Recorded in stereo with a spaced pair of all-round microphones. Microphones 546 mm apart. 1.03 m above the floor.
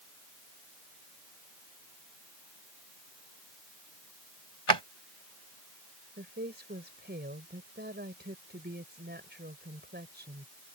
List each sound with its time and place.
4.7 s a drawer: 50° right (ahead or behind)
6.2 s a woman speaking: 20° right (ahead or behind)